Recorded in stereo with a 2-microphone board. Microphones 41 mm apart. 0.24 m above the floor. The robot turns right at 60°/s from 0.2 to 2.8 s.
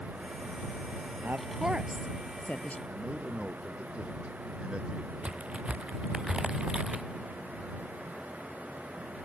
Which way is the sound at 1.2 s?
45° right (ahead or behind).